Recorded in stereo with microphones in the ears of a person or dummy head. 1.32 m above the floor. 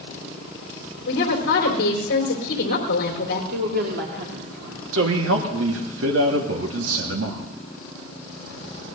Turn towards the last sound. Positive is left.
turn(degrees=-75)  # may be behind; listen again after turning